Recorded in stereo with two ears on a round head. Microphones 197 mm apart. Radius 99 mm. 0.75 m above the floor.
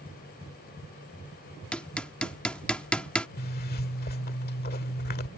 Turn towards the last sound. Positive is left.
turn(degrees=45)  # may be behind; listen again after turning